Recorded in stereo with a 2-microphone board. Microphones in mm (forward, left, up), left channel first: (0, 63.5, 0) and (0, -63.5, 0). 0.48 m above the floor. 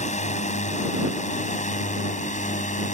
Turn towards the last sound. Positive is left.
turn(degrees=65)  # may be behind; listen again after turning